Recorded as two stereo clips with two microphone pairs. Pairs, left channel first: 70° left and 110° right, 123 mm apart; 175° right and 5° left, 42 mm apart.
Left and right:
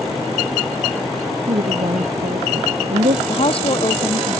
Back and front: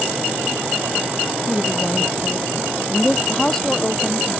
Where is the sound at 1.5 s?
90° right.